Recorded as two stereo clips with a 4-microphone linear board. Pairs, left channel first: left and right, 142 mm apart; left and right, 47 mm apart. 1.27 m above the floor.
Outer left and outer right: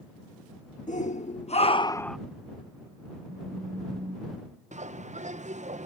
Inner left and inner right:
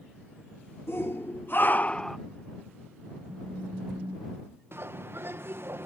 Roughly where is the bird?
Right.